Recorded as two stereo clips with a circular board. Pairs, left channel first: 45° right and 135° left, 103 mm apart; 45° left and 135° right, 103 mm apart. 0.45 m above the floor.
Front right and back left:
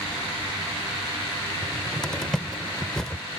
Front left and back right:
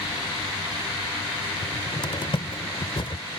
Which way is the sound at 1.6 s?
35° left.